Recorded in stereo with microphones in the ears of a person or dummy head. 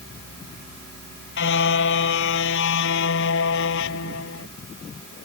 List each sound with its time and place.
1.4 s a car horn: 70° left (ahead or behind); by 4.5 s 75° left (ahead or behind)